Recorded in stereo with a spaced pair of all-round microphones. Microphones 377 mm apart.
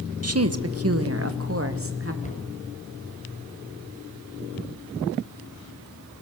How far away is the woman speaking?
About 1.2 m.